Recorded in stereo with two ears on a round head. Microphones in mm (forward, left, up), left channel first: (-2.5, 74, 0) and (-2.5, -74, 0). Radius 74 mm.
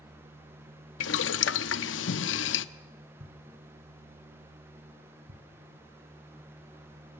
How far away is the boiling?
About 0.6 m.